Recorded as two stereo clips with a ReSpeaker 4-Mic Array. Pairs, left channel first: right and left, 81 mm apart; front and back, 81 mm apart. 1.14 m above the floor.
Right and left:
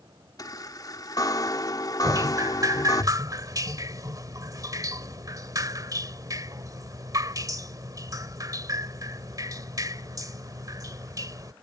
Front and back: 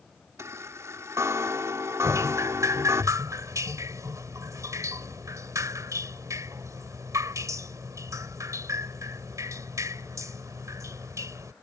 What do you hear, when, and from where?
0.4 s a chime: 125° right
2.0 s dripping: 130° left